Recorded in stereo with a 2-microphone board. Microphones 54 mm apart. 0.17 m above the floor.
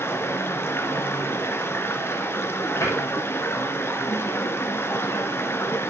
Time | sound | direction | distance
0.0 | running water | 45° left (ahead or behind) | 1.1 m
2.8 | a cupboard door | 80° left | 5 m